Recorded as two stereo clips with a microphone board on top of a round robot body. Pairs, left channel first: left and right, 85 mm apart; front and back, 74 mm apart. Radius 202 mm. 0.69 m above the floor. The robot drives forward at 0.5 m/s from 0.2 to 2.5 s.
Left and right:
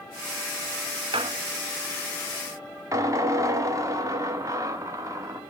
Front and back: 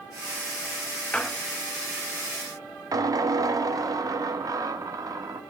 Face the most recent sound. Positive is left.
turn(degrees=-140)